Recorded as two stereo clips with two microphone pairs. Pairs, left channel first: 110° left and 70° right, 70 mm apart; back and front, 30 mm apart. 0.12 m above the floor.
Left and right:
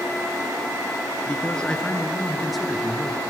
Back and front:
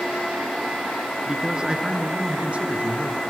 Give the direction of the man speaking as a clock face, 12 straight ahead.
10 o'clock.